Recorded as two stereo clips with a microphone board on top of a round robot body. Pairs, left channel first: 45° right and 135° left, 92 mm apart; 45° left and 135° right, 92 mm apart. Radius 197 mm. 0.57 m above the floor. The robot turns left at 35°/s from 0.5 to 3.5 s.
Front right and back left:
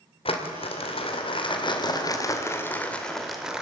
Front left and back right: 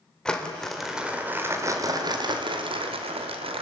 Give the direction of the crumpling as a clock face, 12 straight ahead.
1 o'clock.